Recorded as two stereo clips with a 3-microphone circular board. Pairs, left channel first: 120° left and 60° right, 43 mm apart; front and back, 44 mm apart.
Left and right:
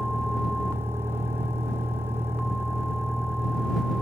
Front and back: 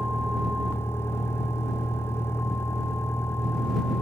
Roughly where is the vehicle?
Ahead right.